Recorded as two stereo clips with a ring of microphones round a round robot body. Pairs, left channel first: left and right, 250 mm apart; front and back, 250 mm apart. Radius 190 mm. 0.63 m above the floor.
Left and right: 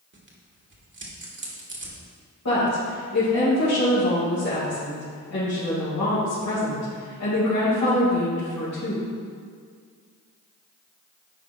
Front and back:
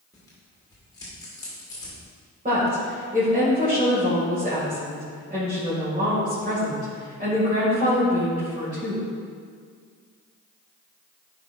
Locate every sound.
0.1 s tearing paper: 75° right, 1.5 m
2.5 s a woman speaking: 120° left, 2.5 m